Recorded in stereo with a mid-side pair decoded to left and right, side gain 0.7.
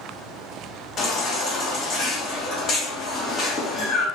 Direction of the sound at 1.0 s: 35° left.